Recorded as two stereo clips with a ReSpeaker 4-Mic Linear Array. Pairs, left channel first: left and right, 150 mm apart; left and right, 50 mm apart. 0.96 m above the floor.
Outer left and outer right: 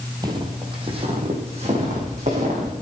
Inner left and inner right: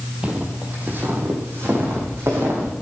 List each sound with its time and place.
0.2 s footsteps: 25° right (ahead or behind), 2 m; by 2.7 s 50° right (ahead or behind), 5 m